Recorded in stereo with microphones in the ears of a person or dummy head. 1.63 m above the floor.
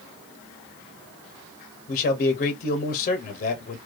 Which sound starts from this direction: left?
A man speaking, at 1.9 s.